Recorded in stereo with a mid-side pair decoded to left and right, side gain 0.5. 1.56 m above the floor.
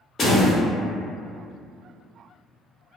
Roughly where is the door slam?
Ahead left.